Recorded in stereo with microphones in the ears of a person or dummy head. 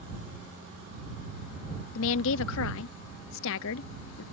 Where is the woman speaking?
70° left (ahead or behind).